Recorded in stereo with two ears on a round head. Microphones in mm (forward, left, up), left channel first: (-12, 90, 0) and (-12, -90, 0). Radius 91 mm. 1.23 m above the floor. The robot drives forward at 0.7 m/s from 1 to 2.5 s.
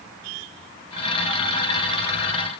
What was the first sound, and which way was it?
Only background noise.